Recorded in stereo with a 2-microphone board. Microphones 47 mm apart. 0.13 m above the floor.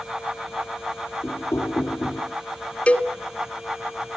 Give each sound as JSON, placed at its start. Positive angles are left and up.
{"t": 1.2, "sound": "knocking", "side_deg": 70, "distance_m": 2.5}
{"t": 2.9, "sound": "a cowbell", "side_deg": 25, "distance_m": 1.2}